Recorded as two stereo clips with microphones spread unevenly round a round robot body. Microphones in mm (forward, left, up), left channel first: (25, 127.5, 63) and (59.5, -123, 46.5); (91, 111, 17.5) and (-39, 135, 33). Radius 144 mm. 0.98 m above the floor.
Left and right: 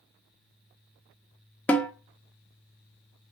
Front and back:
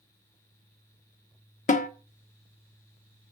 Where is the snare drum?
15° left, 1.3 m.